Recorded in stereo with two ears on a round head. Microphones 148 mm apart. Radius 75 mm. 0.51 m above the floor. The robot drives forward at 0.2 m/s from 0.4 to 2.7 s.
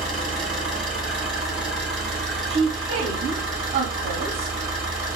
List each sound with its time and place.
0.0 s an engine running: centre (ahead or behind), 2.5 m
2.5 s a woman speaking: 35° right (ahead or behind), 0.8 m